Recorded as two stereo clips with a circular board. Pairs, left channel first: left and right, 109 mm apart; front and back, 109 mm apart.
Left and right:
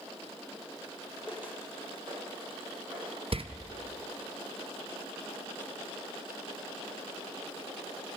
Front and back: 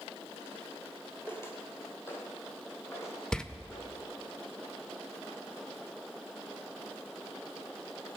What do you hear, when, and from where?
1.3 s footsteps: 20° right, 1.6 m; by 4.1 s 65° right, 4 m
3.3 s a door slam: 80° right, 0.5 m